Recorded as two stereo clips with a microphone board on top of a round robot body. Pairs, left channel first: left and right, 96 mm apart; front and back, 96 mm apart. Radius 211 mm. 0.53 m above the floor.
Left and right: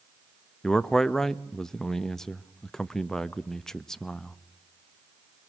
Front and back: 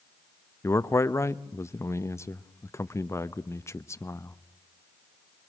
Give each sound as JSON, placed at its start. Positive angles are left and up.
{"t": 0.6, "sound": "a man speaking", "azimuth_deg": 10, "distance_m": 1.1}